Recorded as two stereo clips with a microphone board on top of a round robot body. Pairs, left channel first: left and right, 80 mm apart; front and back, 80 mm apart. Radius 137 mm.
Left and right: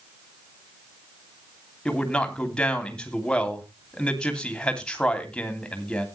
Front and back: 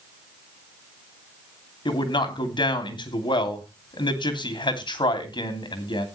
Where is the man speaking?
10° left, 3 m.